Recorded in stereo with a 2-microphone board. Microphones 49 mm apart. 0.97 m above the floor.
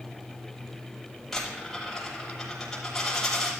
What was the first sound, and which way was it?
A dropped coin, 5° left (ahead or behind).